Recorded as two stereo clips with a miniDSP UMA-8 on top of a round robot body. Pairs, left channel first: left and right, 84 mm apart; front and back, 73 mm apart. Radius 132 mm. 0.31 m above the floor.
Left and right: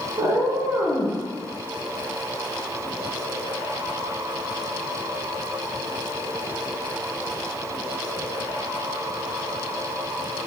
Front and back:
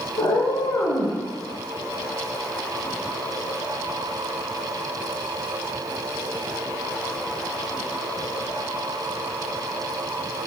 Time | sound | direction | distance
0.2 | a cat meowing | 35° right | 0.9 m